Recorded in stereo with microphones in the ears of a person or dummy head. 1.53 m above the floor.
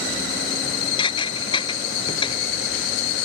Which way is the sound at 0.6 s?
25° left (ahead or behind).